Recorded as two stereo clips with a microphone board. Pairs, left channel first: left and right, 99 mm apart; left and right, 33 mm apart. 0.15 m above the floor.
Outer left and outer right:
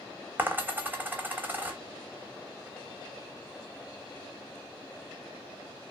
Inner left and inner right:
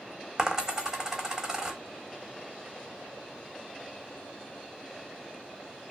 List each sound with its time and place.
0.4 s a dropped coin: 20° right (ahead or behind), 0.6 m